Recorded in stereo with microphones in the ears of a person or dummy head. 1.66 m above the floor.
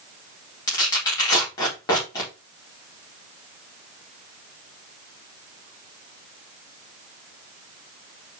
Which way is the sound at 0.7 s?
20° left (ahead or behind).